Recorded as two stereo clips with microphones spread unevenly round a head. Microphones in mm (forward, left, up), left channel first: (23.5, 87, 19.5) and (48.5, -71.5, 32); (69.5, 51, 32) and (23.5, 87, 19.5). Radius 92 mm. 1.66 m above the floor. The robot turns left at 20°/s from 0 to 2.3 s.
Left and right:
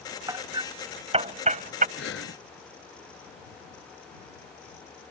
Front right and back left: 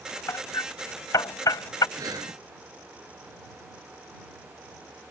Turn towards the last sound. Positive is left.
turn(degrees=125)